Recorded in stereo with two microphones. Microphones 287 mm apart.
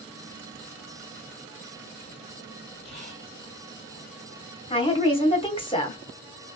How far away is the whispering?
About 2 m.